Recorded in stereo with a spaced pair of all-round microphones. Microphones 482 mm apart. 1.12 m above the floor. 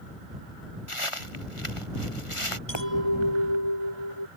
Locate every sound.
0.9 s footsteps: 75° left (ahead or behind); by 2.6 s 80° left
2.7 s a clink: 60° left (ahead or behind)